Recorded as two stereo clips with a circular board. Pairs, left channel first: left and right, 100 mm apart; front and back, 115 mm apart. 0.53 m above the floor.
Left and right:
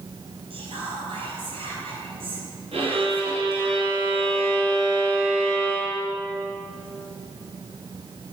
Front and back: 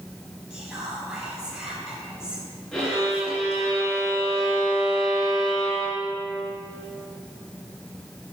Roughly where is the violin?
Right.